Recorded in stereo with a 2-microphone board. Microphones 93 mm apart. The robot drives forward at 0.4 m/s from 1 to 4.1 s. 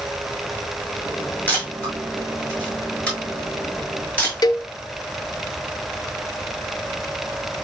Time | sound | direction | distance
1.5 | a camera shutter | 20° left (ahead or behind) | 7 m
4.4 | a cowbell | 45° left (ahead or behind) | 0.9 m